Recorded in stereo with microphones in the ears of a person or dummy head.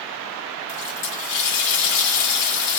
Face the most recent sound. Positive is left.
turn(degrees=65)  # may be behind; listen again after turning